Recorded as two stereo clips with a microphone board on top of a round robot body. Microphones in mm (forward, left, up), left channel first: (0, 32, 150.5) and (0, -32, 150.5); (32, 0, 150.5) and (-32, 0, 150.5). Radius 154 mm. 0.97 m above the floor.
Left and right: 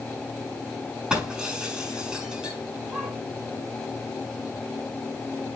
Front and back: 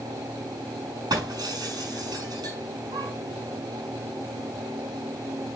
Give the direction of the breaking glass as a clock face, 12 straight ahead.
6 o'clock.